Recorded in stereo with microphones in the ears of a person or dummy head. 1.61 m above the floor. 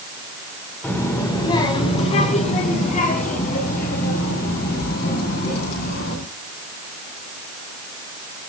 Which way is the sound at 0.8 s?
10° left (ahead or behind).